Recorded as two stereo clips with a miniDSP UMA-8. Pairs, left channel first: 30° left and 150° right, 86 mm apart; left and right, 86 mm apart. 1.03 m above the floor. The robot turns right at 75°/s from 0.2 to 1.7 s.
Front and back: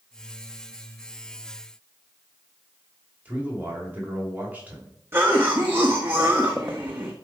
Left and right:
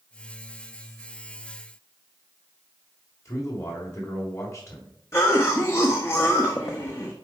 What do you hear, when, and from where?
3.2 s a man speaking: 140° left, 3 m
5.1 s a cough: 145° left, 1.1 m